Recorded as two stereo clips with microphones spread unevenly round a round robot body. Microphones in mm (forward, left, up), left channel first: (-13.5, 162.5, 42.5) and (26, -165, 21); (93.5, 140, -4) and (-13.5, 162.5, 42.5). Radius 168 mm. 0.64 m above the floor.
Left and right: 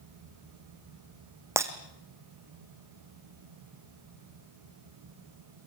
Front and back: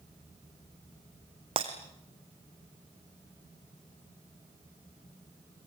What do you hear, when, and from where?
1.6 s breaking glass: 165° right, 1.5 m